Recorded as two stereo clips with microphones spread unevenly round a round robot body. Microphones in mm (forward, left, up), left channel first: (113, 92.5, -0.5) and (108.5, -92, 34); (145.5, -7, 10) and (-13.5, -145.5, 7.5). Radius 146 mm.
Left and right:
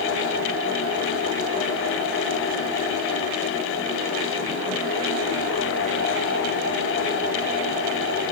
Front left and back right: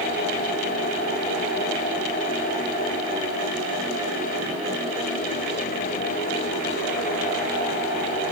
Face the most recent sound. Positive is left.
No sound to turn to.